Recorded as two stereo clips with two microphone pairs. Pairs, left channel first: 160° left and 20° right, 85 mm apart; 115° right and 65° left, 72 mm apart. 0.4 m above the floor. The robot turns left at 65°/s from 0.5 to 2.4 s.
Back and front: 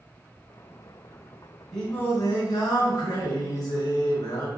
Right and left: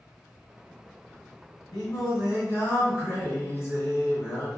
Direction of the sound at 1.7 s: 115° right.